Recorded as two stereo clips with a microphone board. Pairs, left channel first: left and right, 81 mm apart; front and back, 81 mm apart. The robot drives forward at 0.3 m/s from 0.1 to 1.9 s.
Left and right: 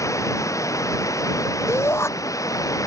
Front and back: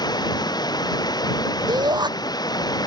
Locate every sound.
0.0 s running water: 35° left; by 2.9 s 40° left
1.7 s a shout: 145° left; by 2.1 s 150° left